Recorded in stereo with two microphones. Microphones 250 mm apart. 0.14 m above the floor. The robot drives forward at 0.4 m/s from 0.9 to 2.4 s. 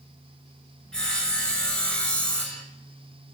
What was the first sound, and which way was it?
Sawing, centre (ahead or behind).